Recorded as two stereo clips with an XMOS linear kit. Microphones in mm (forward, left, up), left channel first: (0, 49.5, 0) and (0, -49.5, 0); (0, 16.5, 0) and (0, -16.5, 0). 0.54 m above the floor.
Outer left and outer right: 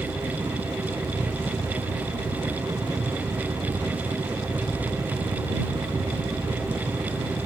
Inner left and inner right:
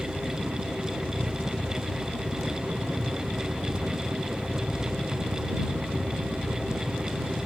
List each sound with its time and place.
0.0 s a helicopter: 45° right (ahead or behind)